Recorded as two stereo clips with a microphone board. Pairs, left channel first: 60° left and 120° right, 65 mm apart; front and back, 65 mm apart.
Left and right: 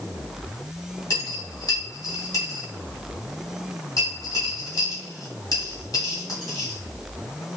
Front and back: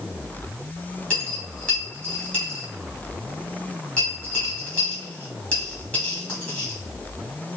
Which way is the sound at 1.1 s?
70° left.